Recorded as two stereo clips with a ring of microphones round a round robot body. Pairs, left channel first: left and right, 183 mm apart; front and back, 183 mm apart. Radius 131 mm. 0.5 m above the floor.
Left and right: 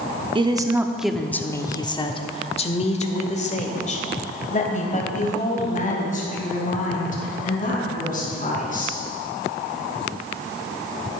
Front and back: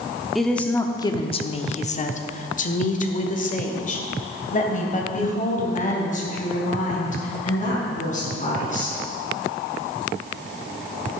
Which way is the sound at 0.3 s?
90° right.